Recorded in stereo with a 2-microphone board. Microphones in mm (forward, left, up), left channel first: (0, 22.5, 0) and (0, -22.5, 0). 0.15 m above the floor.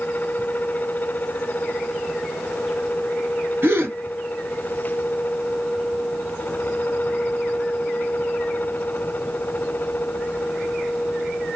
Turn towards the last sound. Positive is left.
turn(degrees=-55)  # may be behind; listen again after turning